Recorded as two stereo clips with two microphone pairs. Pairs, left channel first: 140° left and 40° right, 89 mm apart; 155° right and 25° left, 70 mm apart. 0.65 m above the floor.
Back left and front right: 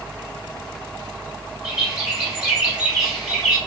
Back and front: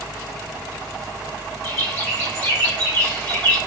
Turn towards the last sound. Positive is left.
turn(degrees=-115)